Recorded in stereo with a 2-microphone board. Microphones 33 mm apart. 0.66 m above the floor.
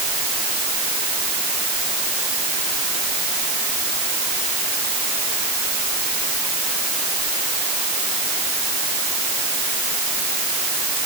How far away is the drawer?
No drawer in this recording.